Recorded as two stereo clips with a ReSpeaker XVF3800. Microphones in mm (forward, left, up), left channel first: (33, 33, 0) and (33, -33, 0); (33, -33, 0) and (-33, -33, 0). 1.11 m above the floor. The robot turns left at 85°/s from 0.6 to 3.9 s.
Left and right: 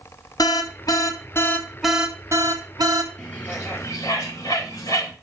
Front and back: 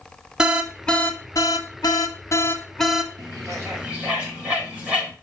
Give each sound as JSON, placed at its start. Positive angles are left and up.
{"t": 0.4, "sound": "an alarm", "azimuth_deg": 100, "distance_m": 1.0}
{"t": 3.2, "sound": "a bird", "azimuth_deg": 170, "distance_m": 4.0}